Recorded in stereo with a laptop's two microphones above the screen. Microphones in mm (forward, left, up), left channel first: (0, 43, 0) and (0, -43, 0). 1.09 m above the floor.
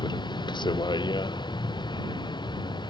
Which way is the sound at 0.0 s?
65° left (ahead or behind).